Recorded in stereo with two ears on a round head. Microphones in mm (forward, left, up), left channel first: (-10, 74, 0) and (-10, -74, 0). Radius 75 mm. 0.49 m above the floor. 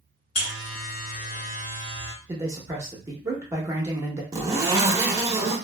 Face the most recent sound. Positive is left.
turn(degrees=-20)  # may be behind; listen again after turning